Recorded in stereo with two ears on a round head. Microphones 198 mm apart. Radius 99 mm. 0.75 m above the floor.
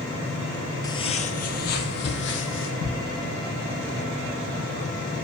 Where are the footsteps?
20° left (ahead or behind), 1.0 m; by 2.7 s 65° left (ahead or behind), 2.5 m.